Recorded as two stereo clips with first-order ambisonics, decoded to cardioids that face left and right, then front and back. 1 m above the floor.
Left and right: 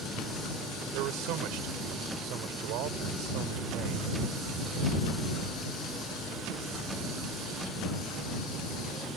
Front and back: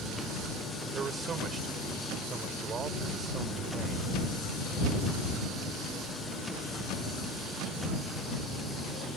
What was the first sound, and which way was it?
A man speaking, 115° right.